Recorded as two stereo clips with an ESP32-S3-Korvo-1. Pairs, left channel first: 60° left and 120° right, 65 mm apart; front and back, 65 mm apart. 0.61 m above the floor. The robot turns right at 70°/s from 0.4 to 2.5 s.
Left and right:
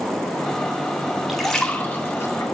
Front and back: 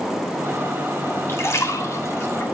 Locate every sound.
1.3 s a splash: 35° right, 1.9 m; by 2.4 s 45° left, 1.9 m